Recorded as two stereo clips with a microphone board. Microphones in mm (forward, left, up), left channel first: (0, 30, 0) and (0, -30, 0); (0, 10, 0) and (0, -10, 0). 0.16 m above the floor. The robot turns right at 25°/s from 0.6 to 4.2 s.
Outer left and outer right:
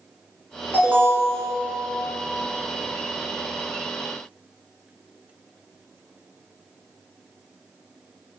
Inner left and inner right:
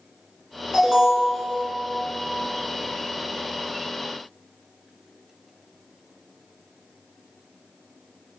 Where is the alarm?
35° right (ahead or behind), 2.5 m.